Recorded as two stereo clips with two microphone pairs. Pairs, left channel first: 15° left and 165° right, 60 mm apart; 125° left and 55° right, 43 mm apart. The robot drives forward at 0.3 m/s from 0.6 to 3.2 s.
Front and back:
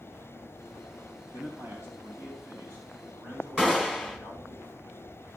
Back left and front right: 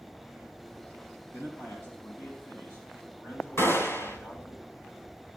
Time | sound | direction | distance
1.3 | a man speaking | 150° left | 4 m
3.6 | a gunshot | 120° left | 2.5 m